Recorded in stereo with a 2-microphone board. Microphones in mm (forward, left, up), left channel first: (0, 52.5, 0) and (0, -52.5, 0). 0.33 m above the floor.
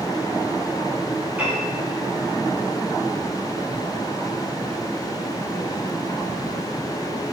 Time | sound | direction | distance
1.4 | a piano | 15° right (ahead or behind) | 8.5 m